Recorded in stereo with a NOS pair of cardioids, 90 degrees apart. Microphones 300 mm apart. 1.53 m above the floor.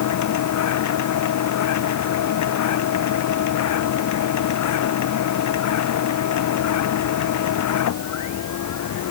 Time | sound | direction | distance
0.0 | a machine running | 70° left | ?